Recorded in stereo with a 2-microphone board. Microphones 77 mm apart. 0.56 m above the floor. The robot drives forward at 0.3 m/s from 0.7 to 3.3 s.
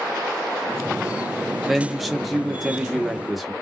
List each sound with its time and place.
1.7 s a man speaking: centre (ahead or behind), 0.6 m